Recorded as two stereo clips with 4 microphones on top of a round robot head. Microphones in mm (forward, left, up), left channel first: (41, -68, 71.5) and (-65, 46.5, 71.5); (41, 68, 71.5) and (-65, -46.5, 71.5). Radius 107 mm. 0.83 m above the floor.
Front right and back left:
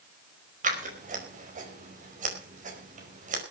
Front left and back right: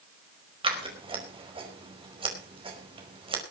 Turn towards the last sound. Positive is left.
turn(degrees=170)